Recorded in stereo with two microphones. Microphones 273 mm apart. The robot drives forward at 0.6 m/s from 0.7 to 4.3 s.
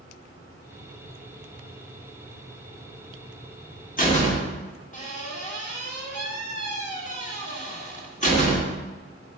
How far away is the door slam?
About 1.4 m.